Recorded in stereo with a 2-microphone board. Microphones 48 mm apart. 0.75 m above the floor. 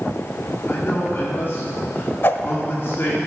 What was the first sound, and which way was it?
A man speaking, 50° left (ahead or behind).